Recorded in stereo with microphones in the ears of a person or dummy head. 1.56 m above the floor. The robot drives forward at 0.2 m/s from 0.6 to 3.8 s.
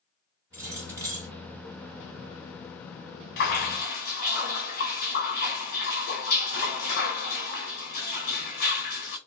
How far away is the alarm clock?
No alarm clock in this recording.